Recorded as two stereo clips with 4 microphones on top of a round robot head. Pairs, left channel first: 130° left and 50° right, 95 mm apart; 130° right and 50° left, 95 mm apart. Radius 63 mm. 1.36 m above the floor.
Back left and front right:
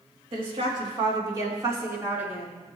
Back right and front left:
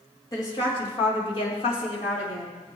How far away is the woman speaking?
About 3 m.